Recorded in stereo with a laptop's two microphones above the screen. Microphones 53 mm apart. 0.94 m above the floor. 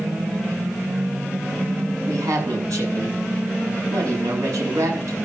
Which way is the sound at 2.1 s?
85° right.